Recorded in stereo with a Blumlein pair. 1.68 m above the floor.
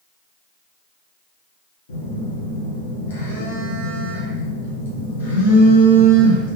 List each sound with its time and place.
1.9 s a phone buzzing: 60° left, 1.3 m